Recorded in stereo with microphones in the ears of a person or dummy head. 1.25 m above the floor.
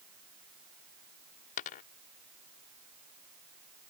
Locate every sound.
1.6 s a dropped coin: 35° left (ahead or behind)